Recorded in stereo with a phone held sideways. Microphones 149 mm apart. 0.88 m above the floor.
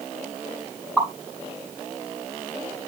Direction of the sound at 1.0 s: Centre (ahead or behind).